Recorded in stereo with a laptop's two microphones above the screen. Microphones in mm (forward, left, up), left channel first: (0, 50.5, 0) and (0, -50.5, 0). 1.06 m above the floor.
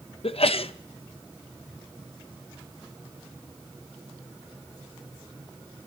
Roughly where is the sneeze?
Left.